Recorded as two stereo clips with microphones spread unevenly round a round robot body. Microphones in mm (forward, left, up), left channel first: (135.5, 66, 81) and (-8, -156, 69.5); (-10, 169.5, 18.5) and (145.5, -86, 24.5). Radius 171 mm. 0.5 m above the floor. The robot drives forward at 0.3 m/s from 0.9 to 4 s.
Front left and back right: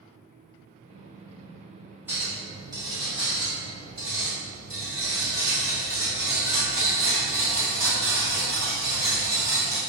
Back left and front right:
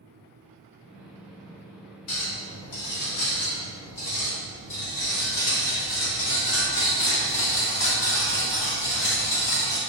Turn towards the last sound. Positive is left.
turn(degrees=165)